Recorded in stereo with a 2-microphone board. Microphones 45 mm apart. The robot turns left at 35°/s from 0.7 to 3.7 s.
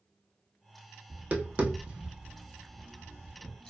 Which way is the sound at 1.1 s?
40° right (ahead or behind).